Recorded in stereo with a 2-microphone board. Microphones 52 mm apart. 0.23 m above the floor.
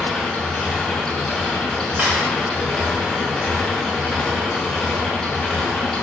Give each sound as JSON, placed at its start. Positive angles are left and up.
{"t": 0.0, "sound": "an engine running", "side_deg": 10, "distance_m": 0.8}
{"t": 2.0, "sound": "a camera shutter", "side_deg": -25, "distance_m": 1.4}